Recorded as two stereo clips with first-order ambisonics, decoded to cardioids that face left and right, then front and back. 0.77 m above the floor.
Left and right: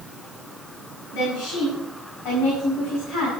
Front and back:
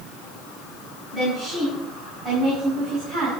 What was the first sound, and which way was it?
A woman speaking, 105° left.